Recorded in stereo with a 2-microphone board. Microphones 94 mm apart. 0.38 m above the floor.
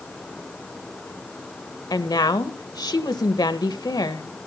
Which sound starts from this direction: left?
A woman speaking, at 1.9 s.